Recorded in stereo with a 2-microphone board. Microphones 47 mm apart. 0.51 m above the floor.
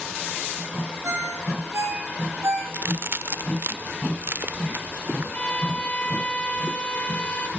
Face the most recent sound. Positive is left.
turn(degrees=25)  # may be behind; listen again after turning